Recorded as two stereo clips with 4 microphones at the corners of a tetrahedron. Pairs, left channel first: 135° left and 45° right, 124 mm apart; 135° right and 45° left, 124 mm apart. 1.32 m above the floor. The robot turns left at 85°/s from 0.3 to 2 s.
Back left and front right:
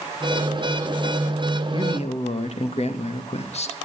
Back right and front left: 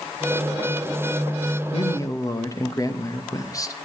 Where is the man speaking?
170° right, 2.5 m; by 3.8 s 165° left, 2.5 m.